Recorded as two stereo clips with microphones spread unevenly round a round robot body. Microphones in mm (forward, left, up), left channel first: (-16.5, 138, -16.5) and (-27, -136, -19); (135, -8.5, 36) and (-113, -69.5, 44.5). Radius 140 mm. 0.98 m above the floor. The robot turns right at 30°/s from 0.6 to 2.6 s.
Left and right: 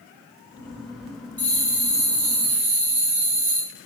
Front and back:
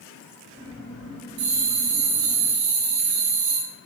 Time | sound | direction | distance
1.4 | a bell | 170° left | 3 m